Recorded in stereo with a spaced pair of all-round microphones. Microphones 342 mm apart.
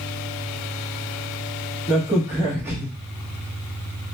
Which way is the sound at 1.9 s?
5° right (ahead or behind).